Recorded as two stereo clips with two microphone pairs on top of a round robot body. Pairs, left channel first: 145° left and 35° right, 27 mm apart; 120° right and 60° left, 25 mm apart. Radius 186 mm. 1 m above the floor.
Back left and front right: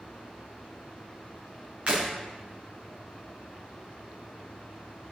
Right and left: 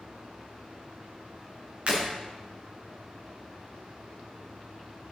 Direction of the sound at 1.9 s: 15° left.